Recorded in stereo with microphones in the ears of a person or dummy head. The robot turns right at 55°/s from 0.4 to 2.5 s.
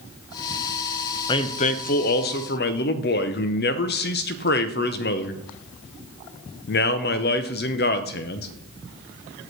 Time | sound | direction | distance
1.3 | a man speaking | 35° left | 0.6 m